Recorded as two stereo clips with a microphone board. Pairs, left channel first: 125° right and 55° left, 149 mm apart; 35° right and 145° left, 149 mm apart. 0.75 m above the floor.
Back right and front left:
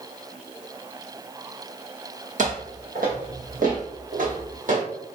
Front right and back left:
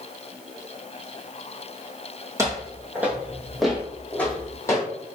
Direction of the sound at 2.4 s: 75° left.